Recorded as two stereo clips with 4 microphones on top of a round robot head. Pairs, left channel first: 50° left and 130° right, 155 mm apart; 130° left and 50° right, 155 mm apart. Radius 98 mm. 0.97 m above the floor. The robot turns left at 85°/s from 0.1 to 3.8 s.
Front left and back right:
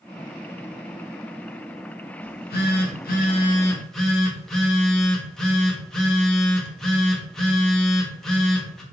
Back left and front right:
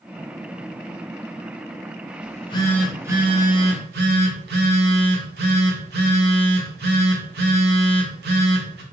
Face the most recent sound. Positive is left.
turn(degrees=-40)